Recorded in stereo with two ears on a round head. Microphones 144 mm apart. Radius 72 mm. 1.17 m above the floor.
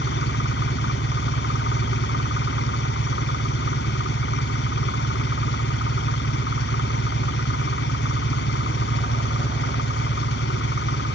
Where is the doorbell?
No doorbell in this recording.